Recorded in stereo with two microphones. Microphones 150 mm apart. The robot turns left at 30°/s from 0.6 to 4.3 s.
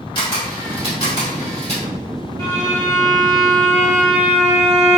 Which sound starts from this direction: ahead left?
A violin, at 2.4 s.